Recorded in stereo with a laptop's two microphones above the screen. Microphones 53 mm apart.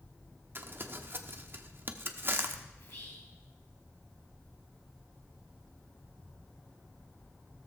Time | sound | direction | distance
0.6 | crumpling | 40° right (ahead or behind) | 0.9 m
2.8 | whispering | 65° left (ahead or behind) | 7 m